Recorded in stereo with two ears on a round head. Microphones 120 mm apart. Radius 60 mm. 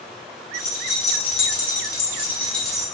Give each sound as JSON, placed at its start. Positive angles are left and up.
{"t": 0.5, "sound": "keys jangling", "side_deg": 65, "distance_m": 1.2}